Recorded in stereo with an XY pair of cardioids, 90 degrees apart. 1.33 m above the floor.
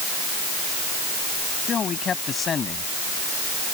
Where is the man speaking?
55° left.